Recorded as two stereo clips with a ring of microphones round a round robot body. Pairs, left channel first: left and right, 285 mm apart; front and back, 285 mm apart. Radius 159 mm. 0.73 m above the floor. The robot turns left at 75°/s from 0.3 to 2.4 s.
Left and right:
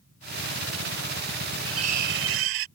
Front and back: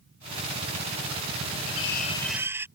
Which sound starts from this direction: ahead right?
Cutlery clinking, at 1.7 s.